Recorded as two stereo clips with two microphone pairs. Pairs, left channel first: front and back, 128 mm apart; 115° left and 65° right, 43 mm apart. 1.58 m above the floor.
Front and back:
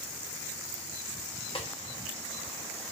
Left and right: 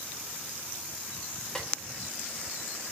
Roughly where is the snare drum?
Ahead left.